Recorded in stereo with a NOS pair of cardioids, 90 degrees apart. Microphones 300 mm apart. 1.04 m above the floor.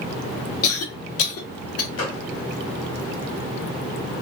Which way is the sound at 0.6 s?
50° left.